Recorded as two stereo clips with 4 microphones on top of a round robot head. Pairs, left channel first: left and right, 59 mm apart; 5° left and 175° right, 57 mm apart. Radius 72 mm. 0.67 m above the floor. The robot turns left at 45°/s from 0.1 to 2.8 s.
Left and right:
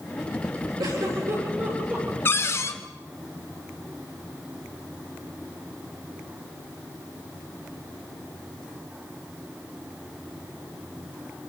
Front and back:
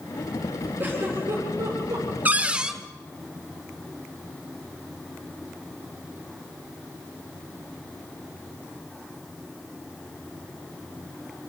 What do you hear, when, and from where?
0.8 s a giggle: 110° right, 7.5 m; by 2.1 s 165° right, 7.5 m
2.2 s a cupboard door: 135° left, 1.6 m; by 2.8 s 110° left, 1.6 m